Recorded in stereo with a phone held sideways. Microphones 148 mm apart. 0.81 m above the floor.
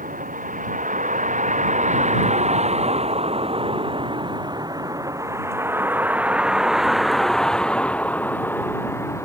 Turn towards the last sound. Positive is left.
turn(degrees=20)  # may be behind; listen again after turning